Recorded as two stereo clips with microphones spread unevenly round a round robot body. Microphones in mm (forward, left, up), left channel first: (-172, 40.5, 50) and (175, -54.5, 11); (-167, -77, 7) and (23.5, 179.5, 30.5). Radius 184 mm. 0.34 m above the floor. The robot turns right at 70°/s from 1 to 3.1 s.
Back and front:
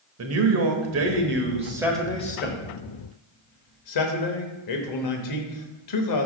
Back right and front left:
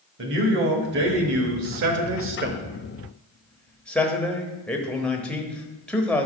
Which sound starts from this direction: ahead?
A man speaking, at 0.2 s.